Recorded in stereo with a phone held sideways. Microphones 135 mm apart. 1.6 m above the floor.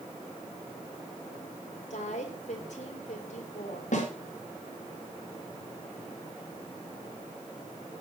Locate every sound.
1.9 s a woman speaking: 60° left (ahead or behind), 5 m
3.9 s a snare drum: 60° left (ahead or behind), 5 m